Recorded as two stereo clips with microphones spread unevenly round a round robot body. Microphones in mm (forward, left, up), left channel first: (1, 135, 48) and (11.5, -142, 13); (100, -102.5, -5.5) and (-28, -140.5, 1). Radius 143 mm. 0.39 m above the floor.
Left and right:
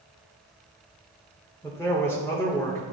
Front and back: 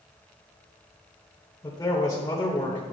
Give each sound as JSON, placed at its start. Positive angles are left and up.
{"t": 1.6, "sound": "a man speaking", "azimuth_deg": 10, "distance_m": 1.3}